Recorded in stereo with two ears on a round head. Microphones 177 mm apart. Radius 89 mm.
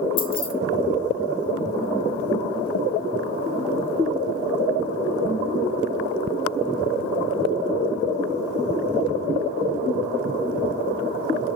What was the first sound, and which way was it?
Keys jangling, 25° left (ahead or behind).